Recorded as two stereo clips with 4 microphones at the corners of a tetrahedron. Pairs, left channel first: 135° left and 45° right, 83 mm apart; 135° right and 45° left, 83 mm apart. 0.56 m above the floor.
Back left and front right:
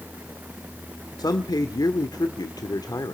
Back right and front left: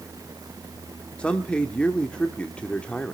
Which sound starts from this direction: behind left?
A man speaking, at 1.2 s.